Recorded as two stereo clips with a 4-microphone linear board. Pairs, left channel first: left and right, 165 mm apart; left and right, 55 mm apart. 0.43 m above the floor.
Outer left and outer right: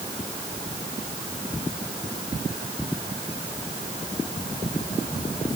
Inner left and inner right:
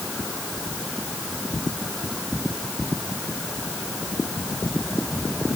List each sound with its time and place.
Only background noise.